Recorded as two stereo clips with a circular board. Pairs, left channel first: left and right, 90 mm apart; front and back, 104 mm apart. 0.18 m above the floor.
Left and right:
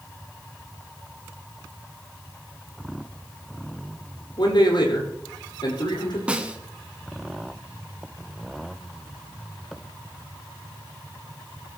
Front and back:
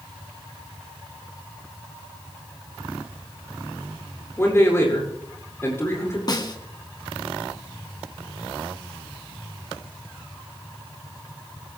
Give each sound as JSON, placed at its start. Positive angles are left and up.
{"t": 4.4, "sound": "a man speaking", "azimuth_deg": 65, "distance_m": 8.0}
{"t": 6.3, "sound": "a snare drum", "azimuth_deg": -20, "distance_m": 1.7}